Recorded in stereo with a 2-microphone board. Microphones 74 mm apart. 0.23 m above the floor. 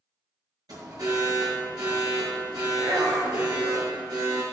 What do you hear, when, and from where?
0.7 s an alarm: 65° right (ahead or behind), 6 m